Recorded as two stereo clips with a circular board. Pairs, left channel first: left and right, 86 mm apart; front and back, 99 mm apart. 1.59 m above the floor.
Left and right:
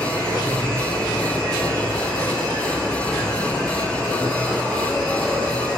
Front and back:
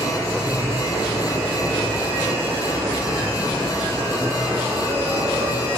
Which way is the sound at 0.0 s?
170° left.